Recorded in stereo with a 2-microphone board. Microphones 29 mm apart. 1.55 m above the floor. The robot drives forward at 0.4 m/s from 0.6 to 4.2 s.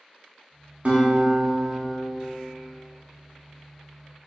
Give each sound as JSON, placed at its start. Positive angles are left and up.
{"t": 0.8, "sound": "a guitar", "side_deg": -55, "distance_m": 0.7}